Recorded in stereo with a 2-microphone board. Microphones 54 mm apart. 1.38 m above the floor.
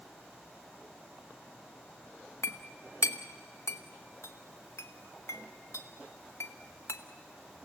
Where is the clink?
60° left (ahead or behind), 1.1 m.